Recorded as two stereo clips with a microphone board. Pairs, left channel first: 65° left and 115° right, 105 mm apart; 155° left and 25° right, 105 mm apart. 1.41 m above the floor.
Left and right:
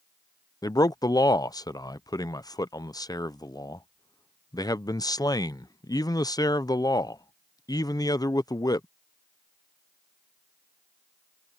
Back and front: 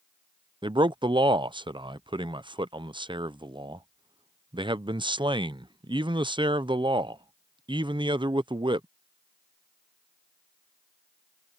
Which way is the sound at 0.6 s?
15° left.